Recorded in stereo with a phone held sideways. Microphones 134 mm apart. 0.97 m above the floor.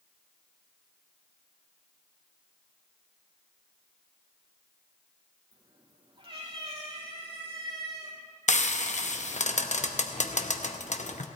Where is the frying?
60° left (ahead or behind), 0.7 m.